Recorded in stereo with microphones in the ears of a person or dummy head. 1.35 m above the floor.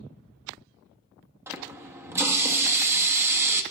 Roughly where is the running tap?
Centre.